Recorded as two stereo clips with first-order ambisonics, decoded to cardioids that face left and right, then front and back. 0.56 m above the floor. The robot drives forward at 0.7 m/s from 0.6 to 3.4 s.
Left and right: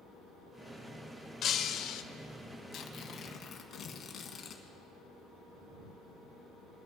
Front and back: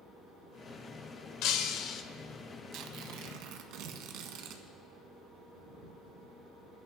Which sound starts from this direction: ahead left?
Breaking glass, at 1.4 s.